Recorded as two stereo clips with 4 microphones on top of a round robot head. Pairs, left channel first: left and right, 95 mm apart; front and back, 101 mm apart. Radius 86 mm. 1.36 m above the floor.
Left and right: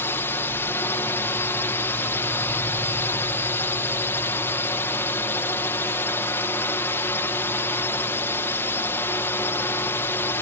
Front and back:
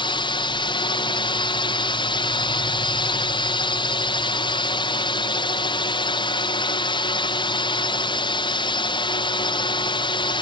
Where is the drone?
25° left.